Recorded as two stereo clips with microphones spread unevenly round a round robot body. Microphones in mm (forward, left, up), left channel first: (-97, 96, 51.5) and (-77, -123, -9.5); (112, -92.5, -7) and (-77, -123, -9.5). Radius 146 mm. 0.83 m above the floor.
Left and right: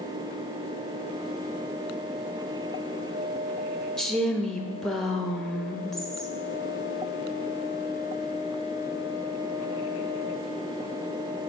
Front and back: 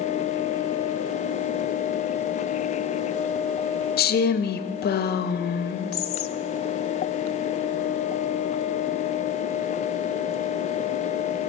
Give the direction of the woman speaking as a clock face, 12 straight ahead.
12 o'clock.